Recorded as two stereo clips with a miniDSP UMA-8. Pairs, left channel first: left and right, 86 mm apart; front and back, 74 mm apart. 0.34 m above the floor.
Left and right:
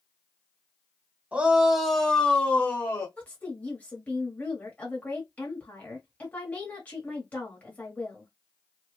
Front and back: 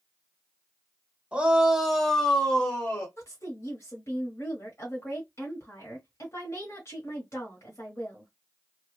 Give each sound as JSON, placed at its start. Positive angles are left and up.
{"t": 1.3, "sound": "a shout", "azimuth_deg": -135, "distance_m": 1.1}
{"t": 3.2, "sound": "a woman speaking", "azimuth_deg": 25, "distance_m": 1.3}